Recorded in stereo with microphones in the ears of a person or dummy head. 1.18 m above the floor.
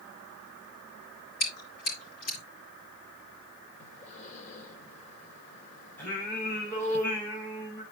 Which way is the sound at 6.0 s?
10° left (ahead or behind).